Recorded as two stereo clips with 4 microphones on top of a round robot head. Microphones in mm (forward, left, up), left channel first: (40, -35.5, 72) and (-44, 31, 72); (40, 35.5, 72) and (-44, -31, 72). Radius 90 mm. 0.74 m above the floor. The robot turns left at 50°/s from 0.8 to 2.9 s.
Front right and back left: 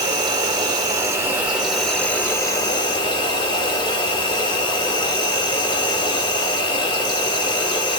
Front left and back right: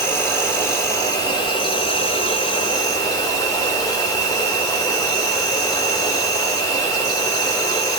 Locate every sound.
0.0 s an insect: 100° left, 1.3 m; by 8.0 s 5° right, 1.3 m